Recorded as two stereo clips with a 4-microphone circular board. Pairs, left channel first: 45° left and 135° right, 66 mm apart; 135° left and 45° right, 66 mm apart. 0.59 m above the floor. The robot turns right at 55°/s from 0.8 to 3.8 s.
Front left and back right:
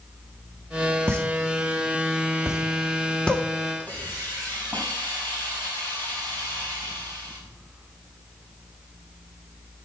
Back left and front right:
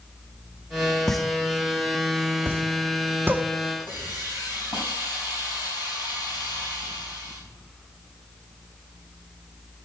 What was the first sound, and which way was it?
A pop, 140° right.